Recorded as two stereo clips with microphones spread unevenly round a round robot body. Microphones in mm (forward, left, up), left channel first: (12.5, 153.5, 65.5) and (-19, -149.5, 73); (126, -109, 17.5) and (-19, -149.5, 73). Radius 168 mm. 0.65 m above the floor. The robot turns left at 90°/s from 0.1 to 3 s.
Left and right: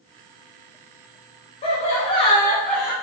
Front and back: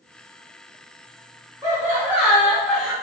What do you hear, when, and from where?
1.6 s laughter: 105° left, 1.0 m; by 2.9 s 10° right, 1.0 m